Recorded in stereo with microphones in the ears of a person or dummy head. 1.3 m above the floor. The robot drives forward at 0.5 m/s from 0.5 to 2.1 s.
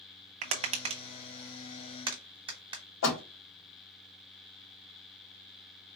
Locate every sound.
0.4 s tapping: 30° right (ahead or behind), 0.6 m; by 2.8 s 15° right (ahead or behind), 1.3 m
3.0 s a door slam: 65° left (ahead or behind), 2 m